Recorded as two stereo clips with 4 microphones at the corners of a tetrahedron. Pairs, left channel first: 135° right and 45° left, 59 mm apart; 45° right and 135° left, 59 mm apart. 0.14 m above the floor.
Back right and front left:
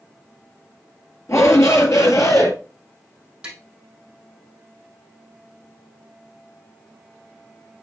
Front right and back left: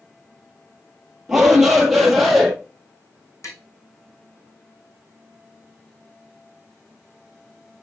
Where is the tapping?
25° right, 3.5 m.